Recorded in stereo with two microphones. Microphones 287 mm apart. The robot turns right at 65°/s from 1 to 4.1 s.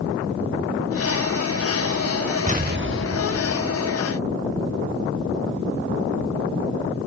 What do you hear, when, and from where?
2.5 s an explosion: 150° right; by 3.8 s 60° right